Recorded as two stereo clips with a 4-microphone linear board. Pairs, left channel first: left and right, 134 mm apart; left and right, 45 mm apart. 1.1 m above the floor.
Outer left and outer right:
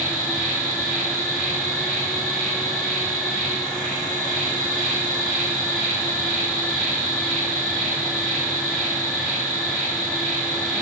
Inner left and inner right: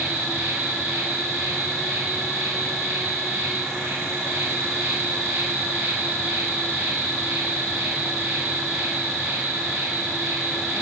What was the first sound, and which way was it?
An insect, 80° right.